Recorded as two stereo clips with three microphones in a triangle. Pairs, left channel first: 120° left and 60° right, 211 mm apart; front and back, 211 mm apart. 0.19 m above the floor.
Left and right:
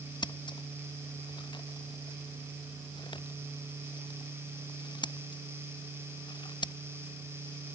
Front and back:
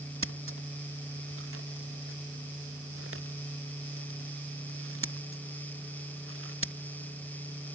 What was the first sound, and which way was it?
Scissors, 170° right.